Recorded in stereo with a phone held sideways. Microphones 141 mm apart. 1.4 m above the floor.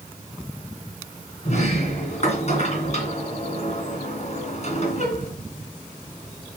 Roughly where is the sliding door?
Left.